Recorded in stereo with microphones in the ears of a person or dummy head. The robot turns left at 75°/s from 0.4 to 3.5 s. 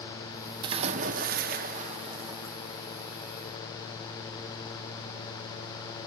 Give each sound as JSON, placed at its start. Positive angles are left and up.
{"t": 0.6, "sound": "a splash", "azimuth_deg": -35, "distance_m": 0.6}